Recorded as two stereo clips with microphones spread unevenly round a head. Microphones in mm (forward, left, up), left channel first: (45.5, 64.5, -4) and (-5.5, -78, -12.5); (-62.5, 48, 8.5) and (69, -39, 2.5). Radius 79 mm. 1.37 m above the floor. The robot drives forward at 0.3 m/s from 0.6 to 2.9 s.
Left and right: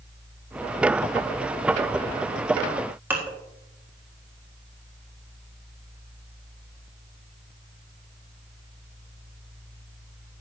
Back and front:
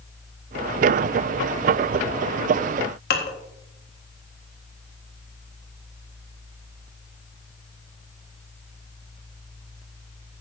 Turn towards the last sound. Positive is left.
turn(degrees=170)